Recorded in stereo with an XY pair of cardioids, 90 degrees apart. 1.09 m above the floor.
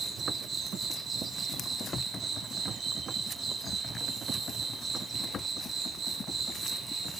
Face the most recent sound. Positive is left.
turn(degrees=-50)